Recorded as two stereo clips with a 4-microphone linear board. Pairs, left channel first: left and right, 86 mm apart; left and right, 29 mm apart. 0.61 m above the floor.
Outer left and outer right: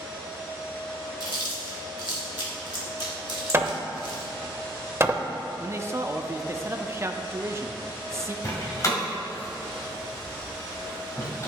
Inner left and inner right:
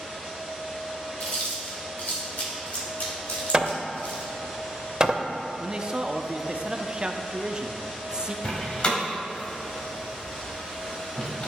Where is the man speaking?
30° right (ahead or behind), 0.6 m.